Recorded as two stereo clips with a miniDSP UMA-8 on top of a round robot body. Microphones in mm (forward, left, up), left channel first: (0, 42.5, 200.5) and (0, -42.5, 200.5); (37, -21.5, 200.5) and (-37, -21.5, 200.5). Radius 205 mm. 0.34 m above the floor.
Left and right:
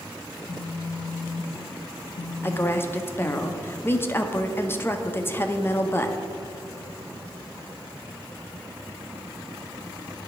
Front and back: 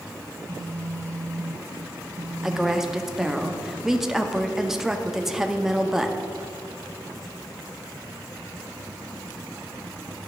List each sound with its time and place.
0.3 s a phone buzzing: 120° left, 0.6 m
2.4 s a woman speaking: 100° left, 0.8 m